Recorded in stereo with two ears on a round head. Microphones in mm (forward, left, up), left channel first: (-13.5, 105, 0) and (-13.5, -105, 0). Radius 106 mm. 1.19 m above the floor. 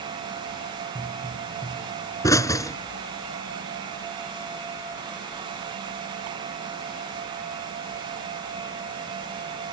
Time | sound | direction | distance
0.9 | a pop | 15° left (ahead or behind) | ?